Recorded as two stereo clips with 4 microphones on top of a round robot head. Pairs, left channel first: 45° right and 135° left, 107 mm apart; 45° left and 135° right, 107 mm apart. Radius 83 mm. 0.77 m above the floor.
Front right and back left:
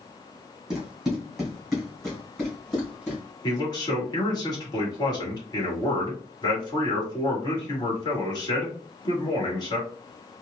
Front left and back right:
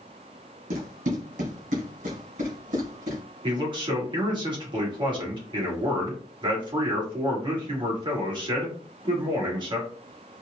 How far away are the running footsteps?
About 1.5 m.